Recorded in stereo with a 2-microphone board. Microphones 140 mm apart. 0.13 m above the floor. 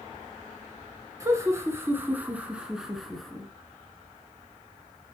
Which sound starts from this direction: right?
Laughter, at 1.2 s.